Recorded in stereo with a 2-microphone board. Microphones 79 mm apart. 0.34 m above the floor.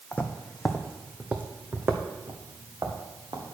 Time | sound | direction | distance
0.1 | footsteps | 20° left (ahead or behind) | 1.0 m